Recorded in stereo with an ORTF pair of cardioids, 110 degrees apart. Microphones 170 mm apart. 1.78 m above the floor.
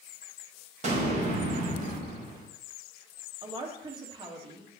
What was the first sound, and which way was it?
An explosion, 40° right.